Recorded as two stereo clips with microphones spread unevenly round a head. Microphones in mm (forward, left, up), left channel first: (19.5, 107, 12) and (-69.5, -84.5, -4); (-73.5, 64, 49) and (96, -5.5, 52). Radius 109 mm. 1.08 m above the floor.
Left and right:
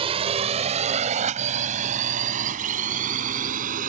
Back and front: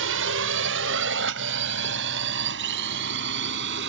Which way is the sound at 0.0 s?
50° right.